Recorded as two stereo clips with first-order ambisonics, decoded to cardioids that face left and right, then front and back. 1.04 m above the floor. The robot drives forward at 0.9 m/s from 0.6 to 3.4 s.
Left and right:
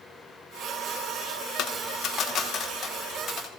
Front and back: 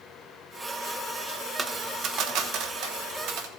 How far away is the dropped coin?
About 0.8 m.